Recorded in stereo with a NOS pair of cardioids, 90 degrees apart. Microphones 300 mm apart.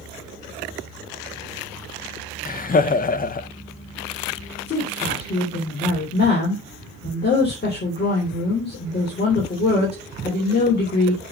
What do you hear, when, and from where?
2.5 s laughter: 30° left, 0.8 m
4.7 s a woman speaking: 35° left, 3.5 m